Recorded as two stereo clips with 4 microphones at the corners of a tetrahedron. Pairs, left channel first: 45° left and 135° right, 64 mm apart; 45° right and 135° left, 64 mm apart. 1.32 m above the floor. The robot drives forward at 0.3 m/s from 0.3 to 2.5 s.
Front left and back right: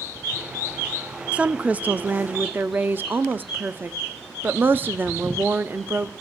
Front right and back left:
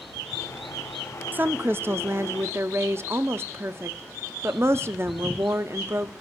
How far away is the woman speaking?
About 0.5 m.